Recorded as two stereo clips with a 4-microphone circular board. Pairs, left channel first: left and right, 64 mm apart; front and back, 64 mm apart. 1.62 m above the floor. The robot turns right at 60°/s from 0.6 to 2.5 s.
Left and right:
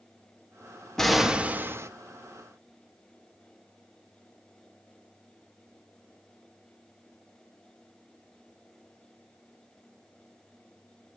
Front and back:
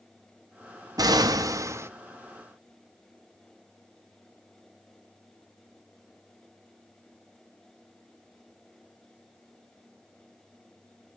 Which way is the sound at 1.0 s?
175° left.